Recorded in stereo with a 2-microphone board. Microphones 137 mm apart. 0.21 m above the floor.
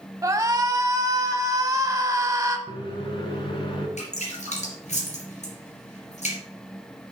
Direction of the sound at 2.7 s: 40° left (ahead or behind).